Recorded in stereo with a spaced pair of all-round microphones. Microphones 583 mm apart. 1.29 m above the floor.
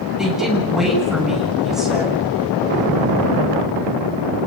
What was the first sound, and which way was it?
A woman speaking, centre (ahead or behind).